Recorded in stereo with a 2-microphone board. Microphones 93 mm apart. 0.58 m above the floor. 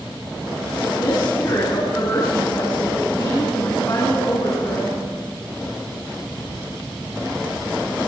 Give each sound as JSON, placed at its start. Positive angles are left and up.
{"t": 1.0, "sound": "a woman speaking", "side_deg": 40, "distance_m": 5.0}